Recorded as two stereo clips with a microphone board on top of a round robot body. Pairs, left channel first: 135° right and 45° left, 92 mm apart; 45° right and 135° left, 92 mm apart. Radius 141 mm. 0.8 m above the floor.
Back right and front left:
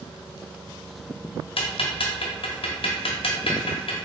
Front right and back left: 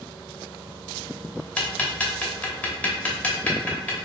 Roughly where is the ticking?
Behind right.